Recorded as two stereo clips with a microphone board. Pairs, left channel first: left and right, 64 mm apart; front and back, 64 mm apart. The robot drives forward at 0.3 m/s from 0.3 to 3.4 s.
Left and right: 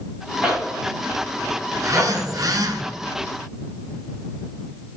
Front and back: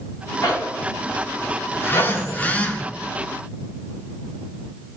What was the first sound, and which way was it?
A zipper, 10° right.